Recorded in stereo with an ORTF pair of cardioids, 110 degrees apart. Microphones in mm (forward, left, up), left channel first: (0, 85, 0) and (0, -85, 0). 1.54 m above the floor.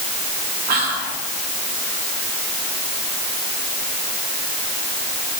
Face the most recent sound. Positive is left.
turn(degrees=-70)